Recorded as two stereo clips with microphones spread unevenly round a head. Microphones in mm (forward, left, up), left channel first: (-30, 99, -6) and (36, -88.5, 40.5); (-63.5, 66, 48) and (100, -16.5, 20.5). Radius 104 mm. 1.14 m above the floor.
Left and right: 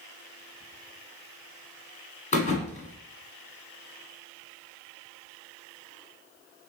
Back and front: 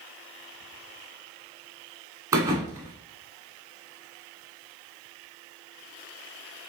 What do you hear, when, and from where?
2.3 s a thud: 55° left, 1.2 m